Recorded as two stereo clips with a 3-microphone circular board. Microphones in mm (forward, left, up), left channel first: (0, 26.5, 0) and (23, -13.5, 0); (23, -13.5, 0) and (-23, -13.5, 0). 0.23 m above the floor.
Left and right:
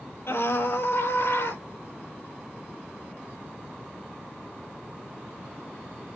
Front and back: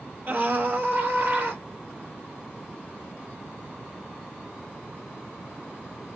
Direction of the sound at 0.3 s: 140° left.